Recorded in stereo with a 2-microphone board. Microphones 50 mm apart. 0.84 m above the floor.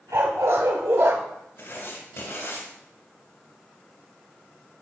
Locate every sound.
0.1 s a dog barking: 75° right (ahead or behind), 1.9 m; by 1.2 s 65° right (ahead or behind), 0.8 m
1.6 s writing: 60° left (ahead or behind), 1.8 m